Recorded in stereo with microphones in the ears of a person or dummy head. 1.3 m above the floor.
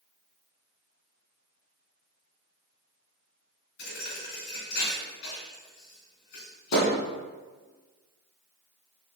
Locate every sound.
3.8 s a thud: 60° left (ahead or behind), 2.5 m